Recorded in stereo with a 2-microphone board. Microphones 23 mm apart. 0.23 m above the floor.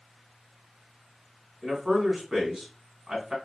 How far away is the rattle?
No rattle in this recording.